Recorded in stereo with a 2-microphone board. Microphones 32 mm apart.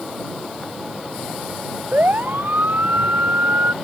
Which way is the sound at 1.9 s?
65° right (ahead or behind).